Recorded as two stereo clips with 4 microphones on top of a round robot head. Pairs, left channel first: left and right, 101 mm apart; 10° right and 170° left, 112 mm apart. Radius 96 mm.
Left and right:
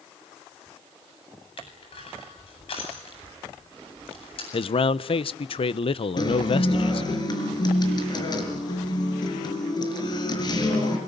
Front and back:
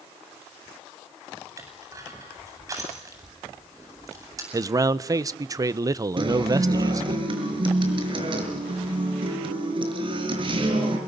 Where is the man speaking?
115° left, 1.0 m.